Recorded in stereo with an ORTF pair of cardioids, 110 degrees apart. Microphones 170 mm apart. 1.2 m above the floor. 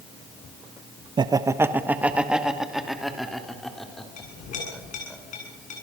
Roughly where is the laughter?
Ahead right.